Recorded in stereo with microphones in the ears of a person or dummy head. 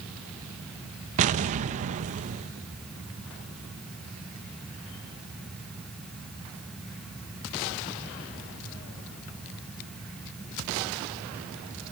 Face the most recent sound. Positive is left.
turn(degrees=-35)  # may be behind; listen again after turning